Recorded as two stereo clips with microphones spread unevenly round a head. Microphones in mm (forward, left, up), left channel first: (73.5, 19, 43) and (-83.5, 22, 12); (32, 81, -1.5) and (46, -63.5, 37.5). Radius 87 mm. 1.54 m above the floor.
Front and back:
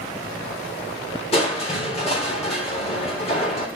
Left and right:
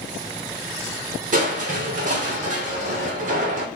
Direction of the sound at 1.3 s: 55° right.